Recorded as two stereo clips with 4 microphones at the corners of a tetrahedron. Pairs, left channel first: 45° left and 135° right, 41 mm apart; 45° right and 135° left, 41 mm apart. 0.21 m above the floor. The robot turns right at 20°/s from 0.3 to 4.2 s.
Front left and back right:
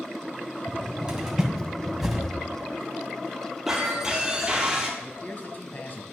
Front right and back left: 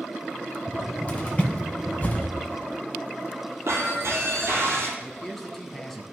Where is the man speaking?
35° left, 1.2 m.